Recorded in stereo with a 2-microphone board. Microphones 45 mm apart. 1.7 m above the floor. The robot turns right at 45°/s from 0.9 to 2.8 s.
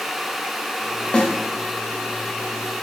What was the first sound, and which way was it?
A snare drum, 25° left (ahead or behind).